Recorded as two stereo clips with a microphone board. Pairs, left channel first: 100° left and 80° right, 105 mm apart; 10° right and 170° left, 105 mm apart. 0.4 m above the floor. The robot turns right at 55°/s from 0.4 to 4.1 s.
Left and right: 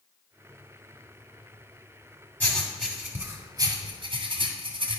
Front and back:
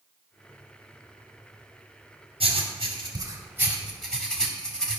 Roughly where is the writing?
Behind.